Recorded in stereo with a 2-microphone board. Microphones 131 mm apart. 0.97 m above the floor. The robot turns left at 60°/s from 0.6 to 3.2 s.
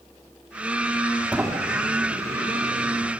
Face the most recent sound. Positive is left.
turn(degrees=-120)